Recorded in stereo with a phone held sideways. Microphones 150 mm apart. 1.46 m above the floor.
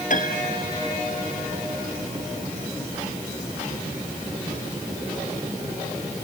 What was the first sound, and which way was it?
A piano, 60° left (ahead or behind).